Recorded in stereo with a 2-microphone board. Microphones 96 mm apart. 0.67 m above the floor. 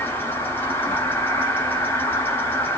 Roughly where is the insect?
Left.